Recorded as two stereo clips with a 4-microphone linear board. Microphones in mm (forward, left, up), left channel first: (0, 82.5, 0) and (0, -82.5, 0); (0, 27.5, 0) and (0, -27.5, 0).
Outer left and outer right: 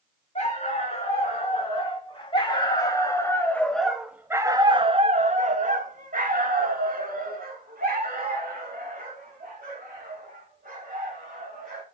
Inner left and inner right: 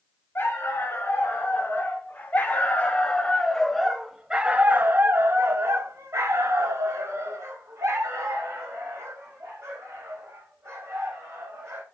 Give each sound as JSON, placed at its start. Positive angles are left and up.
{"t": 0.3, "sound": "a dog barking", "side_deg": 40, "distance_m": 2.5}